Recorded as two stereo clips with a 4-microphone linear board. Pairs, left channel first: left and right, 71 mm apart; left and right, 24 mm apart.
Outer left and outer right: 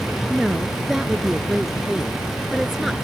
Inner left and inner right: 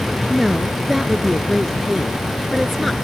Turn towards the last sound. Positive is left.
turn(degrees=-5)  # may be behind; listen again after turning